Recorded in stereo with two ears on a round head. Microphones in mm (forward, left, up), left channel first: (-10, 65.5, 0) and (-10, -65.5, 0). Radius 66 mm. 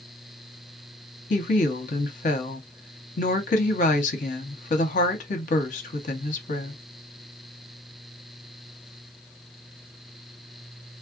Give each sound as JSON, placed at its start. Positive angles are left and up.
{"t": 1.3, "sound": "a woman speaking", "side_deg": 55, "distance_m": 0.9}